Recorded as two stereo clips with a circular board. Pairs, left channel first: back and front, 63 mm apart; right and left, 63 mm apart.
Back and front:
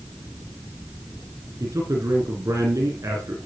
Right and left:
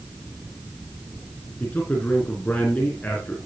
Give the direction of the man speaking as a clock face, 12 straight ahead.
1 o'clock.